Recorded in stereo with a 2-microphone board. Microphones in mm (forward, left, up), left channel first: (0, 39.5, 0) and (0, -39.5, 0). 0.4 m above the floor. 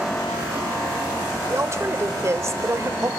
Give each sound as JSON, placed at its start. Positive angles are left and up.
{"t": 1.5, "sound": "a woman speaking", "side_deg": -40, "distance_m": 1.2}